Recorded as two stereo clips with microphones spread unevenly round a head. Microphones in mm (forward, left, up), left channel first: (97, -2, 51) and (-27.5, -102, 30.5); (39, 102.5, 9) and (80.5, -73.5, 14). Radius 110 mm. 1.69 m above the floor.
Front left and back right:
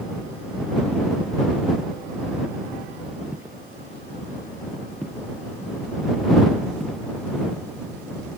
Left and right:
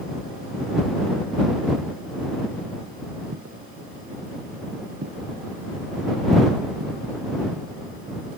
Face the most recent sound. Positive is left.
turn(degrees=-50)